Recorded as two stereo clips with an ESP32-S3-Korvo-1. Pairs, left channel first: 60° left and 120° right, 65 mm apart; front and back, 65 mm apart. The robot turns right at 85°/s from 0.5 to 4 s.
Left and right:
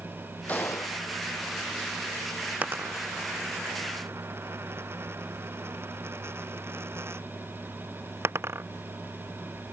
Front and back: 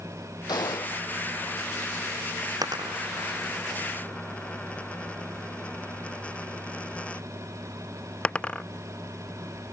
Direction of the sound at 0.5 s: 10° right.